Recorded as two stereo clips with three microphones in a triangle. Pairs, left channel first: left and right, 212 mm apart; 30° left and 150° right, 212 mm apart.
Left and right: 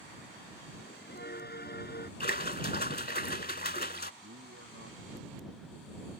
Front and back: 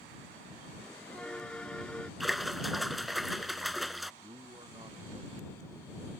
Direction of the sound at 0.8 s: 115° left.